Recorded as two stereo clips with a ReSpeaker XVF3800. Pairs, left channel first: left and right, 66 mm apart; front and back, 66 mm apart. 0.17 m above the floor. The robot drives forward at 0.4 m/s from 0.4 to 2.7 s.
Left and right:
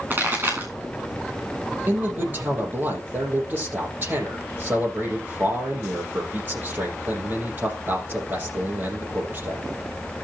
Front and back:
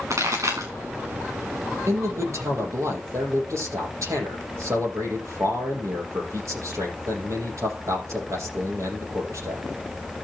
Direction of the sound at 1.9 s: 145° right.